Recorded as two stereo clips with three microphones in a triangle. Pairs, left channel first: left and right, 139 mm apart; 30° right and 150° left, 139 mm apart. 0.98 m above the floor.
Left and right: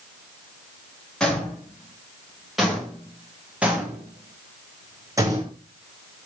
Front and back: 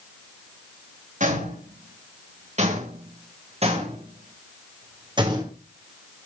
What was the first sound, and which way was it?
Footsteps, 175° left.